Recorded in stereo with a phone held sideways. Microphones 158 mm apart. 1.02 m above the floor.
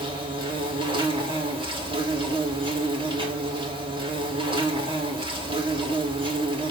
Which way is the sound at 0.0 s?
35° right (ahead or behind).